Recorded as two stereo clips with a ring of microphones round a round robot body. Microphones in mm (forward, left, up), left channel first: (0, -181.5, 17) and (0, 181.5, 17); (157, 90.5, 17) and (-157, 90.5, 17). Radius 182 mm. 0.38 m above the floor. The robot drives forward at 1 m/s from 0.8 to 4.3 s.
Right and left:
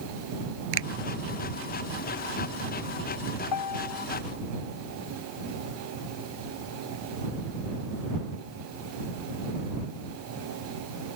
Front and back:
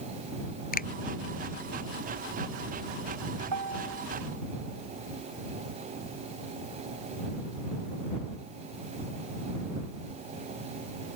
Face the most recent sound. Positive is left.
turn(degrees=-130)